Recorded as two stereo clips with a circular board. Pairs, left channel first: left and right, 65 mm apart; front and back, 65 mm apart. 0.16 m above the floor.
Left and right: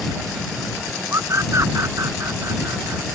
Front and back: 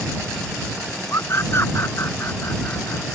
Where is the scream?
50° right; by 3.2 s 55° right.